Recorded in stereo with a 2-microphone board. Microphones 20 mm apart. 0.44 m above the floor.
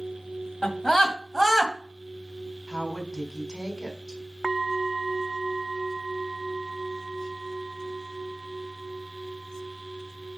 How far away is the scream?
About 2.5 m.